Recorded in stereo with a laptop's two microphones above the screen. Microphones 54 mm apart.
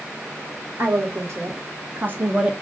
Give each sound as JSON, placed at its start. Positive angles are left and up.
{"t": 0.8, "sound": "a woman speaking", "side_deg": -65, "distance_m": 1.6}